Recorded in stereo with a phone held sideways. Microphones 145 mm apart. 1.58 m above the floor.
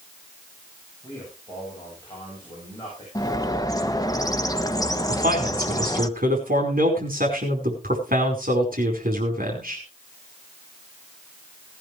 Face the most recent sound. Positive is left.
turn(degrees=-80)